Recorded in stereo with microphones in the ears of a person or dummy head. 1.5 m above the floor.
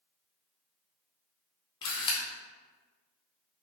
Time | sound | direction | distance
1.8 | a camera shutter | 25° left (ahead or behind) | 0.6 m